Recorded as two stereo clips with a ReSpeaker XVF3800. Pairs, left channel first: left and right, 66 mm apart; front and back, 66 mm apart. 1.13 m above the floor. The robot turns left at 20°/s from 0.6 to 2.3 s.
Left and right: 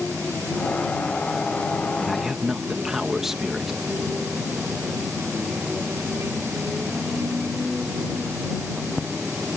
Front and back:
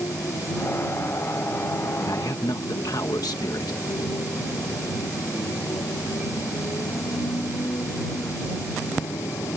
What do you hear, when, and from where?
0.0 s a motorcycle: 25° left; by 9.6 s 10° right
2.0 s a man speaking: straight ahead; by 3.8 s 5° right